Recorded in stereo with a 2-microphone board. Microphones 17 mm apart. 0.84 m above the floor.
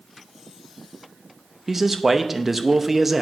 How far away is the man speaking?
About 0.6 m.